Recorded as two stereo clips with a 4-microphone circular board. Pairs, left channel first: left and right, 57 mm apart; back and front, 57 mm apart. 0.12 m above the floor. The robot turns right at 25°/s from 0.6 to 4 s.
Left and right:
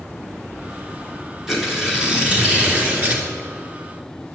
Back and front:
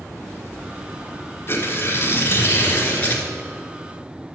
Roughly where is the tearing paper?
Behind.